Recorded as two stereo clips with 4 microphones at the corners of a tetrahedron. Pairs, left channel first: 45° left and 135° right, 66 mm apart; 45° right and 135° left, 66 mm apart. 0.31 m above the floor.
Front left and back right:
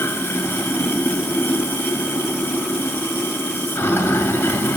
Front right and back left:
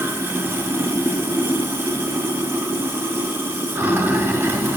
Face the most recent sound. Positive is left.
turn(degrees=90)